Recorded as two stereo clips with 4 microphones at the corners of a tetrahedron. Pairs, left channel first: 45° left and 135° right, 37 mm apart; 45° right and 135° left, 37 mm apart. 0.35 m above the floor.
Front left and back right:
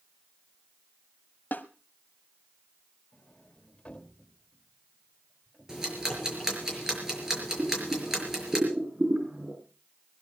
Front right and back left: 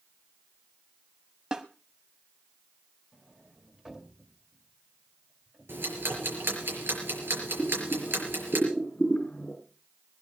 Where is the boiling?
95° right, 5.5 m.